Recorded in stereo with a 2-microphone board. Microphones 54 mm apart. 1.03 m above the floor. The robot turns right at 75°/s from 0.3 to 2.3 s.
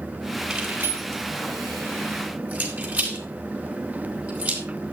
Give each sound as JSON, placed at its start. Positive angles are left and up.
{"t": 0.5, "sound": "keys jangling", "side_deg": -10, "distance_m": 4.0}